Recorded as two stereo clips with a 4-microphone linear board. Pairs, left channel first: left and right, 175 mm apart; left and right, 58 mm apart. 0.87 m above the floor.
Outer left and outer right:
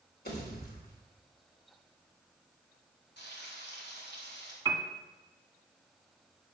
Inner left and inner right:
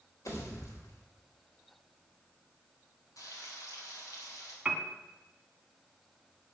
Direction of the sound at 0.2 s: 65° left (ahead or behind).